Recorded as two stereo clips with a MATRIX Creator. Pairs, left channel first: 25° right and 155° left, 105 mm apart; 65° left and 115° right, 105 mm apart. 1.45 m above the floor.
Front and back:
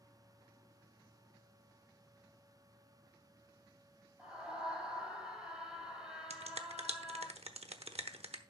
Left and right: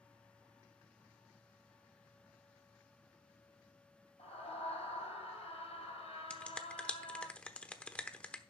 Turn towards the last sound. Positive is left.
turn(degrees=145)